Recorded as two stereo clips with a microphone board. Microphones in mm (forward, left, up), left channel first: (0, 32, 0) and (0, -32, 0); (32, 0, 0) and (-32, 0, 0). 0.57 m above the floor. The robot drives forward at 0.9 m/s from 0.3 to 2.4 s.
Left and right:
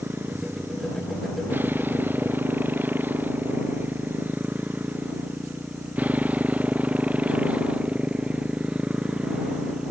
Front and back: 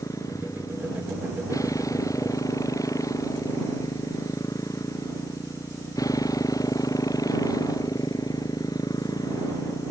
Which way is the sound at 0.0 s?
30° right.